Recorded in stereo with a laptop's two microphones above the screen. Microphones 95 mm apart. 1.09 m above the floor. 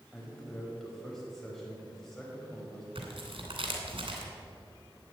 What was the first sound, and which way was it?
A man speaking, 5° left (ahead or behind).